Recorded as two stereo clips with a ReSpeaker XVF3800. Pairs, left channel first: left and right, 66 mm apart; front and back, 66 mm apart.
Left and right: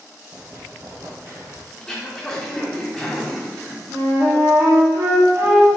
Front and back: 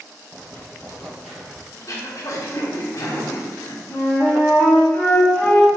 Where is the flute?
55° right, 1.2 m.